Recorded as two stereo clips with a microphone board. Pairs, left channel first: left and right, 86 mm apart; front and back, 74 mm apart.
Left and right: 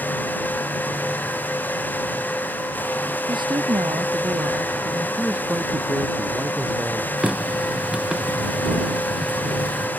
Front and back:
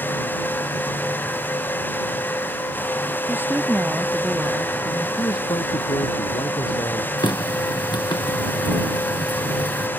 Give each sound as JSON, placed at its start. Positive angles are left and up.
{"t": 3.3, "sound": "a woman speaking", "azimuth_deg": -120}
{"t": 5.2, "sound": "a man speaking", "azimuth_deg": -15}
{"t": 7.2, "sound": "a running tap", "azimuth_deg": -10}